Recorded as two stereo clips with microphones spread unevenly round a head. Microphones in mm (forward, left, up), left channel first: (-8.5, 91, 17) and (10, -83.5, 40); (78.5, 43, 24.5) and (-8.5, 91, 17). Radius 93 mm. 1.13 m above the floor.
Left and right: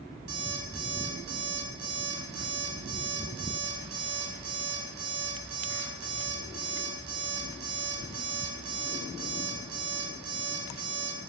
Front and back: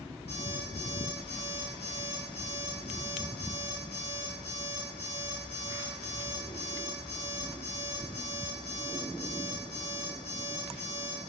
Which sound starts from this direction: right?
An alarm clock, at 0.3 s.